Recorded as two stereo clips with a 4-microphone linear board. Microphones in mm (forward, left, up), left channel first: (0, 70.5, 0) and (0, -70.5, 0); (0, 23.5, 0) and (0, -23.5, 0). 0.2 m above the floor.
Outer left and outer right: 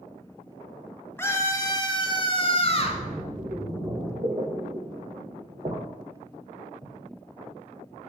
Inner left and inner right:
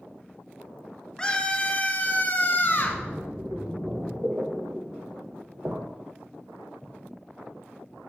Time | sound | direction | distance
1.2 | a scream | 15° left (ahead or behind) | 1.1 m
2.6 | a splash | 40° right (ahead or behind) | 3 m